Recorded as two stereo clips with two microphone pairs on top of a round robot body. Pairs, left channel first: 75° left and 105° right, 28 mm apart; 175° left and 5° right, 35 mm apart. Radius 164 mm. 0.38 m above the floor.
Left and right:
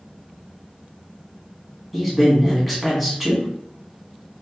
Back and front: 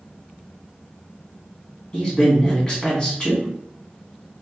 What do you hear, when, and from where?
1.9 s a man speaking: 160° left, 1.7 m